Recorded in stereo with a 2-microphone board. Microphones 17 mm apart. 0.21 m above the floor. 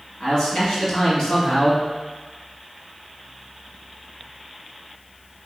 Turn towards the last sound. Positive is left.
turn(degrees=55)  # may be behind; listen again after turning